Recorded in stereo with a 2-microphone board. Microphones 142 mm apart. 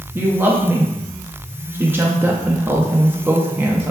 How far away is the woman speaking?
About 0.5 m.